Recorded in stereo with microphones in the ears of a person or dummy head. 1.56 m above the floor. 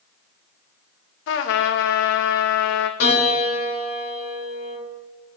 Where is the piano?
65° left (ahead or behind), 1.8 m.